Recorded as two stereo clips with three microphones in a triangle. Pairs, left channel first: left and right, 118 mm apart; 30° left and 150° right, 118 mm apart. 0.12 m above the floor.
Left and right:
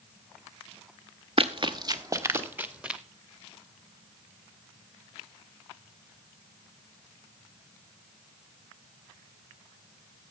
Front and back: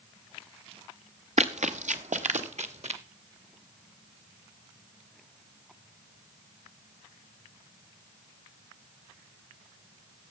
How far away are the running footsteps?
About 1.0 m.